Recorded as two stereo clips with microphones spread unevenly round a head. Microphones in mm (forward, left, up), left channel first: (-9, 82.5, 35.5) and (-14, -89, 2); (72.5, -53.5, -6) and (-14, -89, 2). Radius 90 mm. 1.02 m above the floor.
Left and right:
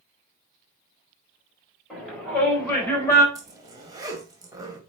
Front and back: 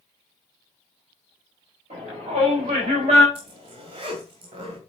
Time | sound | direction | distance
1.9 | a shout | 175° left | 5 m
3.4 | a zipper | 165° right | 2.0 m